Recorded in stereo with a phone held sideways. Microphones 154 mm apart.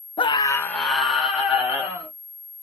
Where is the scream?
35° left (ahead or behind), 0.6 m; by 2.1 s 15° right (ahead or behind), 2 m.